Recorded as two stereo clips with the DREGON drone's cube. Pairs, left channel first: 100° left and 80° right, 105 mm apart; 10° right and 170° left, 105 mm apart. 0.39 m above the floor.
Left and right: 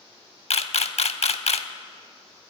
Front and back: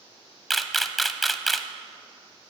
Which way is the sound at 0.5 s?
80° left.